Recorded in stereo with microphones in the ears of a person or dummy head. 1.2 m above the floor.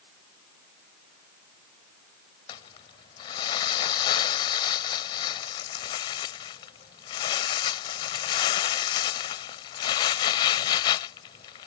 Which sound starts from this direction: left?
Crumpling, at 2.5 s.